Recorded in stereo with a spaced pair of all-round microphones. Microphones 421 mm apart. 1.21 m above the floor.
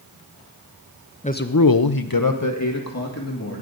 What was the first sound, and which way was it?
A man speaking, 15° left (ahead or behind).